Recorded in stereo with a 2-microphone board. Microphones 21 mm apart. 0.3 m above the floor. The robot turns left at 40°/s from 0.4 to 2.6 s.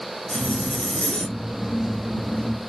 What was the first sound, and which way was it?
A zipper, 100° left.